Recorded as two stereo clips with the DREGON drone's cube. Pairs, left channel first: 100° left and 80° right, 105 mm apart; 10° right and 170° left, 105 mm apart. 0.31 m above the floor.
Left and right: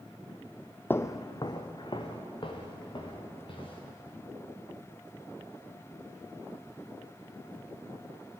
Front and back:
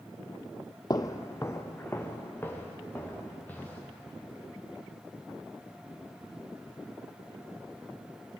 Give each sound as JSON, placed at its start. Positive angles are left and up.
{"t": 0.9, "sound": "footsteps", "azimuth_deg": 30, "distance_m": 0.6}